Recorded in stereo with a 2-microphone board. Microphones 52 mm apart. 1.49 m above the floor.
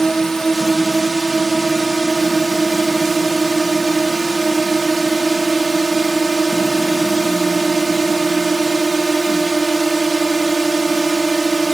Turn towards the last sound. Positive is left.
turn(degrees=5)  # may be behind; listen again after turning